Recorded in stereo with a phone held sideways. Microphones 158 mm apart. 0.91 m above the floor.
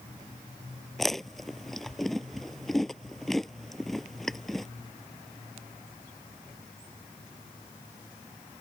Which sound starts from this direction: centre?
Chewing, at 1.0 s.